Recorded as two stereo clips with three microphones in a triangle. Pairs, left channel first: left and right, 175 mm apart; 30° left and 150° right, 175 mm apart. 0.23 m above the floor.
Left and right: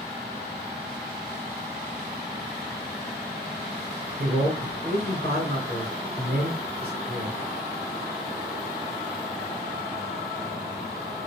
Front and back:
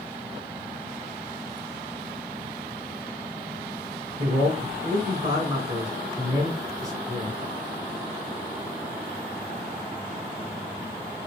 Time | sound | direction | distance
4.2 | a man speaking | 95° right | 3.5 m